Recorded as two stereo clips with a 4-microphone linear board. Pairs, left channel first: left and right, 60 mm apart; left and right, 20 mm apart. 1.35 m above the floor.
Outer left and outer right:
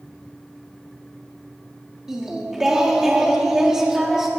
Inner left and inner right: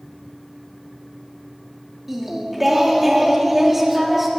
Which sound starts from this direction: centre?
Singing, at 2.1 s.